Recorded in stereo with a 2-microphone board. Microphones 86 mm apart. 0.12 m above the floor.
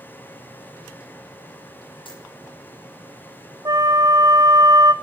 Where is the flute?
45° right (ahead or behind), 1.2 m.